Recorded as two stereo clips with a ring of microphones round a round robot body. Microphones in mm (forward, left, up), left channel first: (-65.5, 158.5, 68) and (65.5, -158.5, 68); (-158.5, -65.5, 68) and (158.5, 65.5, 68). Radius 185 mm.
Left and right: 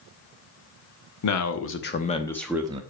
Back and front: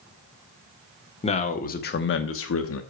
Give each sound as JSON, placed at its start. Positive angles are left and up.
{"t": 1.2, "sound": "a man speaking", "azimuth_deg": 130, "distance_m": 1.4}